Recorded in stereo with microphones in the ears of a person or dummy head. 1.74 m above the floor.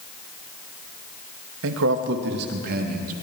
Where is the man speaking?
80° right, 2 m; by 3.1 s 50° right (ahead or behind), 3.5 m.